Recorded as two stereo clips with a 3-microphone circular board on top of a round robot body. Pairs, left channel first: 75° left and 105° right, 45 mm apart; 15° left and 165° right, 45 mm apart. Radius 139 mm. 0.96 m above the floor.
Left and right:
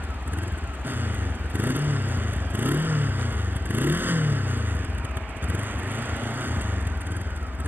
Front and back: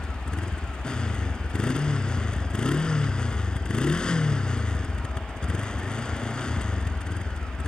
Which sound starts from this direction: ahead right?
A motorcycle, at 0.0 s.